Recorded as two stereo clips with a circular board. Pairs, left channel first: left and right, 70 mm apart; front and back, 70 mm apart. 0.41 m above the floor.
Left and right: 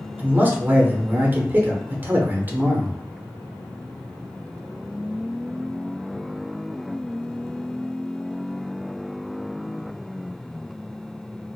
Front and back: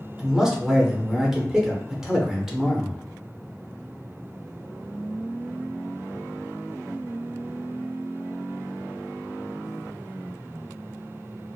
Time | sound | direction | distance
0.2 | a man speaking | 105° right | 0.8 m